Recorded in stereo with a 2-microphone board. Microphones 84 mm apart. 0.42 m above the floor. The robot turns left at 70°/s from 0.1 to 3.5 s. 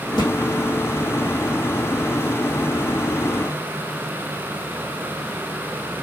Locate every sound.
0.2 s a thud: 55° left (ahead or behind), 3 m; by 0.3 s 45° left (ahead or behind), 3 m